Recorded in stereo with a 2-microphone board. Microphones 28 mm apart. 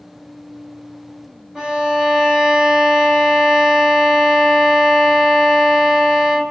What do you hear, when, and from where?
1.6 s a violin: 20° right (ahead or behind), 2.0 m